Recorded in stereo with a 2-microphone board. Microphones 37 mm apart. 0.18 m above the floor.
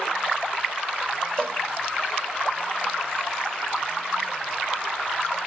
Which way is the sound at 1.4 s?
20° left (ahead or behind).